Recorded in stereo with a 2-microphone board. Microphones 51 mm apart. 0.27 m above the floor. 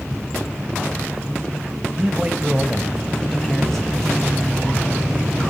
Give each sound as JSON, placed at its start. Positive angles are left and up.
{"t": 2.0, "sound": "a man speaking", "side_deg": -25, "distance_m": 1.4}